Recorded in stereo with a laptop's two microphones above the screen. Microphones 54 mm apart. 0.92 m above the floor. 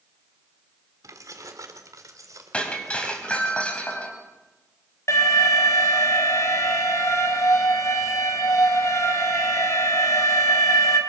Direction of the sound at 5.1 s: 65° left (ahead or behind).